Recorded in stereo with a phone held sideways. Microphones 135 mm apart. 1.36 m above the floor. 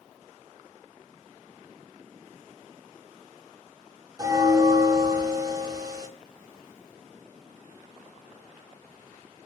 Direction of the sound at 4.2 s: 25° right (ahead or behind).